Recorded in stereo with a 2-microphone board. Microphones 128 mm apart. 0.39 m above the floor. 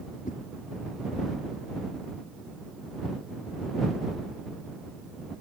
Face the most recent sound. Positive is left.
turn(degrees=70)  # may be behind; listen again after turning